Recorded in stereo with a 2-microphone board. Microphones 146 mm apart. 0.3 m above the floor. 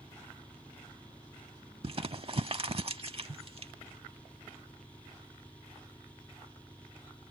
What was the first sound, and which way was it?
An engine running, 10° left (ahead or behind).